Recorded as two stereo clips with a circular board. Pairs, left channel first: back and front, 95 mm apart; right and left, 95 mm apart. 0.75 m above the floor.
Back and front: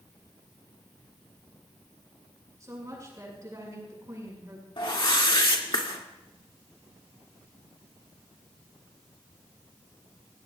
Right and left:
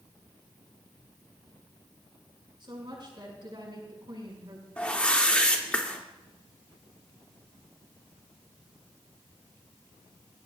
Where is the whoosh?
165° right, 2 m.